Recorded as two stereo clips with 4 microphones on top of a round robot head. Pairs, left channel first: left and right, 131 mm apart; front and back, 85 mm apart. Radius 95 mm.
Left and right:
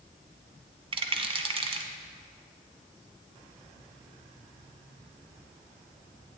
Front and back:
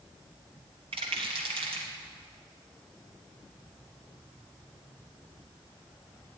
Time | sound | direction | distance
0.9 | a rattle | 140° right | 1.2 m